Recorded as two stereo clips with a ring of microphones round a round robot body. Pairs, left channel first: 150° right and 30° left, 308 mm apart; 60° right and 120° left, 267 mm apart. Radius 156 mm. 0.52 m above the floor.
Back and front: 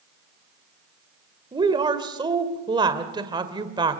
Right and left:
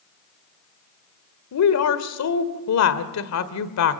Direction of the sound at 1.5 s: 45° right.